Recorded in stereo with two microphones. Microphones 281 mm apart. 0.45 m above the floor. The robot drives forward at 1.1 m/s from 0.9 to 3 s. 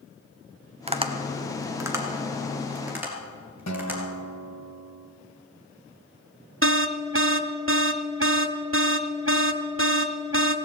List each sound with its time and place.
0.9 s tapping: 20° right (ahead or behind), 0.9 m; by 4.0 s 5° right (ahead or behind), 3 m
3.7 s a guitar: 70° left (ahead or behind), 1.3 m
6.6 s an alarm: 45° right (ahead or behind), 0.7 m